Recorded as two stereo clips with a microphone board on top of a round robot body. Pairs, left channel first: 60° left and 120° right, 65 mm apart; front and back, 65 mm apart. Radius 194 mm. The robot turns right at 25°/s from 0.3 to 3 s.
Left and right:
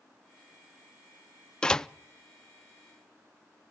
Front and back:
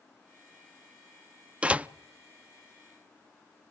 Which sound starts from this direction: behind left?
A door slam, at 1.6 s.